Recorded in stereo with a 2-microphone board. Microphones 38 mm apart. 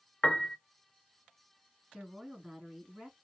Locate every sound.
0.2 s a piano: 20° left (ahead or behind), 0.5 m
1.9 s a woman speaking: 15° right (ahead or behind), 1.9 m